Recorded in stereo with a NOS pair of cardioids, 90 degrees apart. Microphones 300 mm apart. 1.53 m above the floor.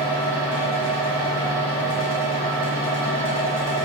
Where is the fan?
5° right, 1.9 m.